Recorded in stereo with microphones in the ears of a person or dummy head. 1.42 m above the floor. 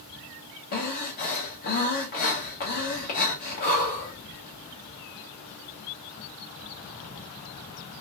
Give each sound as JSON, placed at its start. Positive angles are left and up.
{"t": 0.7, "sound": "breathing", "side_deg": 35, "distance_m": 0.7}